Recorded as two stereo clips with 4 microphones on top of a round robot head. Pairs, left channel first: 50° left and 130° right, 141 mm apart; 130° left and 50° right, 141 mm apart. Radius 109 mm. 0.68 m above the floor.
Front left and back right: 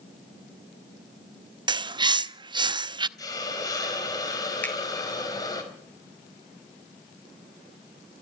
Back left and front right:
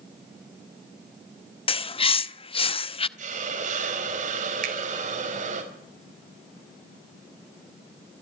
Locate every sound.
1.7 s a bird: 175° left, 0.8 m
3.2 s a hiss: 15° right, 4.5 m
4.6 s a finger snap: 30° right, 4 m